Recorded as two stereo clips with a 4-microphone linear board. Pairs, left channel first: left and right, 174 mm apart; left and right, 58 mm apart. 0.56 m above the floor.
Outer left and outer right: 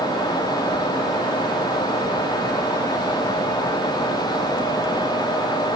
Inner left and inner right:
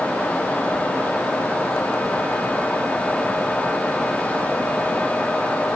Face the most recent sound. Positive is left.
No sound to turn to.